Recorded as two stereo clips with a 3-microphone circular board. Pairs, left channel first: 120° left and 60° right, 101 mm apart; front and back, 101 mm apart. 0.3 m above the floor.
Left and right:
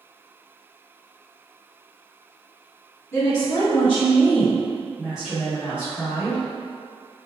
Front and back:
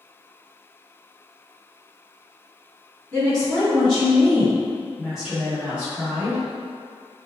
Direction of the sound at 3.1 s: 65° left.